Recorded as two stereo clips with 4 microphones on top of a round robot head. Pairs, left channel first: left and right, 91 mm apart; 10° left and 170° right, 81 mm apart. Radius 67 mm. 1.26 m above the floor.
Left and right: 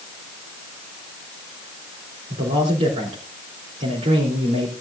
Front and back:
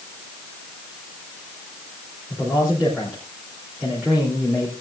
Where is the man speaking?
85° right, 3.5 m.